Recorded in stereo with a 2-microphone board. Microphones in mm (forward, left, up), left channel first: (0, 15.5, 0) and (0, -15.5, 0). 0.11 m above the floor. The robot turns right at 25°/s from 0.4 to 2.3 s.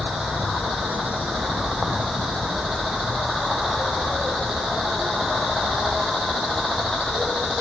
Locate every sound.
0.0 s an insect: 65° right; by 7.6 s 15° right